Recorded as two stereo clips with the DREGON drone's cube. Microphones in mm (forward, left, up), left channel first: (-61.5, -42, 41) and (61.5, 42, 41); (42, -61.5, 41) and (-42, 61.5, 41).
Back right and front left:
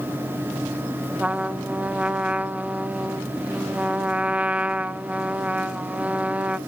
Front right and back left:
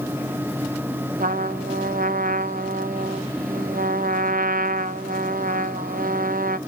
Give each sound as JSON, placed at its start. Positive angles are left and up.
{"t": 1.2, "sound": "a trumpet", "azimuth_deg": 115, "distance_m": 0.5}